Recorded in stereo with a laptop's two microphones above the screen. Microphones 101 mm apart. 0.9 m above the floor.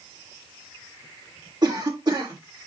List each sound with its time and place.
1.6 s a cough: 45° right (ahead or behind), 2 m